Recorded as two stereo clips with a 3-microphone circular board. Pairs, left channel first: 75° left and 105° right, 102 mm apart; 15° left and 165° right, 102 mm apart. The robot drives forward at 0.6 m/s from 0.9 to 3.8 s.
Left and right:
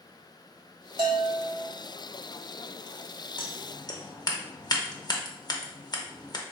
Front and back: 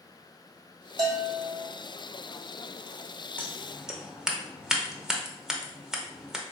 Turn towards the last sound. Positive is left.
turn(degrees=110)